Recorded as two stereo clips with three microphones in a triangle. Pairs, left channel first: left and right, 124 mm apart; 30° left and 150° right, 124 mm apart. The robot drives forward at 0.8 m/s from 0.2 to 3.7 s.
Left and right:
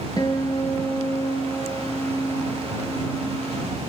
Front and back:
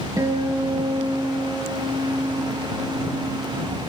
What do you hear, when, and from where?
0.2 s a guitar: 145° left, 4.5 m; by 3.8 s 160° left, 7 m